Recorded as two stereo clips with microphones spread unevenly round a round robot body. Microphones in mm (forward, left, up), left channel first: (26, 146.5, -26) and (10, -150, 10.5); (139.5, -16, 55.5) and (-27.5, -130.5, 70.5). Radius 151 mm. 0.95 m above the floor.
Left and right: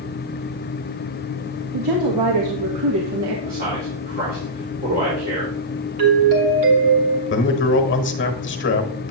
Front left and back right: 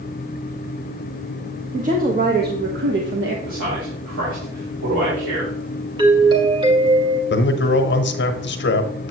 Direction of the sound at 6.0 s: 75° right.